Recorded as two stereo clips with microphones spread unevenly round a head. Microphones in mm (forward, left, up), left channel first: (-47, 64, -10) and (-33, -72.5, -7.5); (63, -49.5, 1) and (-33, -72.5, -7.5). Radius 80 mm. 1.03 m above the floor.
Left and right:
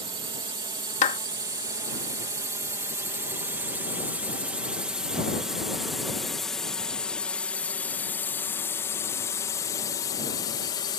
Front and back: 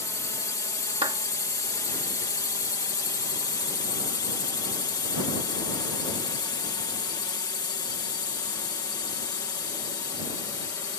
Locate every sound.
0.0 s a drone: 35° right; by 11.0 s 55° left
1.0 s a clap: 135° left